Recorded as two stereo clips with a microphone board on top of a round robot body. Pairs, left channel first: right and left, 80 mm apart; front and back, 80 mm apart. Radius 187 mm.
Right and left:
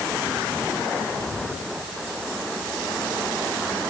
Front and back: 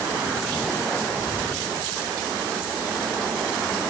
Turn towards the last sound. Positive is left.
No sound to turn to.